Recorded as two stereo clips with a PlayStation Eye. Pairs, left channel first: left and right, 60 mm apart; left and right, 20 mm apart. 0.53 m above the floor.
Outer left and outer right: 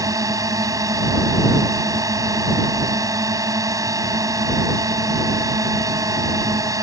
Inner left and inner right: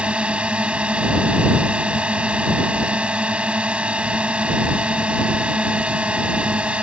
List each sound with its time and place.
0.0 s a drone: 75° right (ahead or behind)